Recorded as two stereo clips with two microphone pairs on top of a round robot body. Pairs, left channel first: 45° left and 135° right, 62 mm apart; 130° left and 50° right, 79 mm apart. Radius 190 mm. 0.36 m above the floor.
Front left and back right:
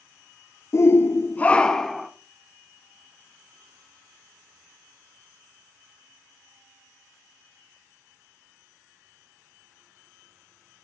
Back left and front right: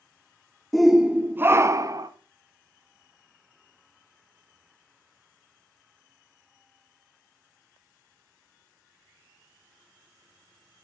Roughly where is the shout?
Ahead left.